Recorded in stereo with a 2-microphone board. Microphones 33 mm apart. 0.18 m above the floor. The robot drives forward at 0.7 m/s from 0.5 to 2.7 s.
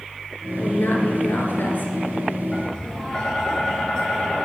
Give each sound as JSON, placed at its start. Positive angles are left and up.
{"t": 0.6, "sound": "a woman speaking", "side_deg": 60, "distance_m": 2.5}
{"t": 2.5, "sound": "tapping", "side_deg": 20, "distance_m": 3.5}